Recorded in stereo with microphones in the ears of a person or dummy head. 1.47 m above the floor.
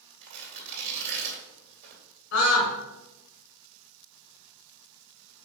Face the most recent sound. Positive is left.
turn(degrees=65)  # may be behind; listen again after turning